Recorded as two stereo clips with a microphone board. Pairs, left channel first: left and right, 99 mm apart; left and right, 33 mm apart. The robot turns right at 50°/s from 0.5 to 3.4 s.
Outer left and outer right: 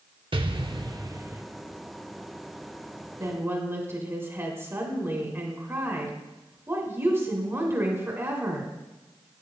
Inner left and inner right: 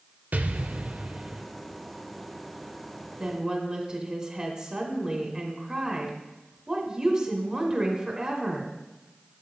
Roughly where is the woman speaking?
Right.